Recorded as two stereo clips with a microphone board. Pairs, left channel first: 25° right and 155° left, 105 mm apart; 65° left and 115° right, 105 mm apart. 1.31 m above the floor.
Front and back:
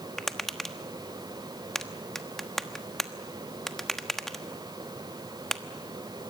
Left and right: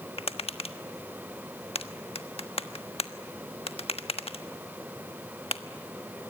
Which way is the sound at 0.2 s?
65° left.